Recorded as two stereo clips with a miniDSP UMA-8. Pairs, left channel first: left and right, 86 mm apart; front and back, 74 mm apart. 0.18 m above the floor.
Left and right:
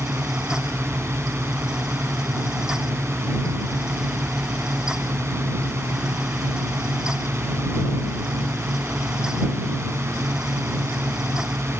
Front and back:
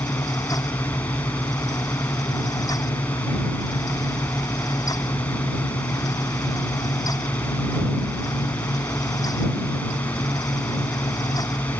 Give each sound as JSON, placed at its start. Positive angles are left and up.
{"t": 0.0, "sound": "a drone", "azimuth_deg": -60}